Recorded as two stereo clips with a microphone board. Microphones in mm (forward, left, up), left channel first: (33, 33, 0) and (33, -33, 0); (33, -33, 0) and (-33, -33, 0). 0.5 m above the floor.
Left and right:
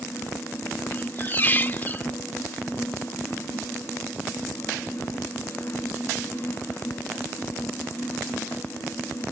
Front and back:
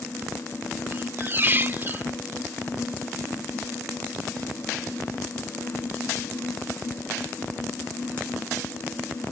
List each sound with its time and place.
0.9 s a squeak: 140° left